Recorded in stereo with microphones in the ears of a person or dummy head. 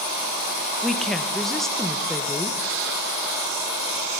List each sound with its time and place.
0.8 s a woman speaking: centre (ahead or behind), 1.9 m